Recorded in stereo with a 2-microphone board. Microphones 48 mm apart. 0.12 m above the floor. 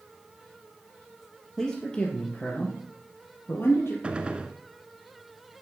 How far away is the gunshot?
About 0.8 m.